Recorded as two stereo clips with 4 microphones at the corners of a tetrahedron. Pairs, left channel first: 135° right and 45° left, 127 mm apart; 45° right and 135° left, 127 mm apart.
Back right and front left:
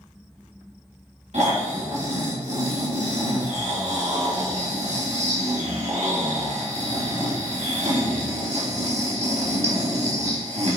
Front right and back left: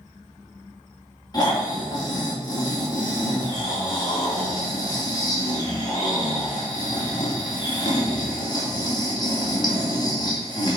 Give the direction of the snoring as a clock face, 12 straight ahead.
12 o'clock.